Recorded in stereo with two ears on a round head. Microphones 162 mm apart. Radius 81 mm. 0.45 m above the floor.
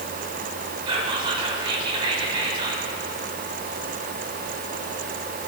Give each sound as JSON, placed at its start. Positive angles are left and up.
{"t": 0.9, "sound": "whispering", "side_deg": -30, "distance_m": 1.7}